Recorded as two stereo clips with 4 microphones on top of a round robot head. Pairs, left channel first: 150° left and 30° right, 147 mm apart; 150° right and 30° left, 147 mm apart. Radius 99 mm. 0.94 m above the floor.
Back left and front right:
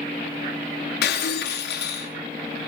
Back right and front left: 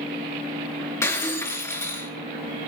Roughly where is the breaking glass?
Behind left.